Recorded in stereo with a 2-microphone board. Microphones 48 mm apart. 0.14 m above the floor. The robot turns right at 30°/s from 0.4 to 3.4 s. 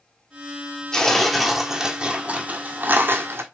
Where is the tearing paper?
165° left, 1.1 m; by 3.4 s 120° right, 1.1 m.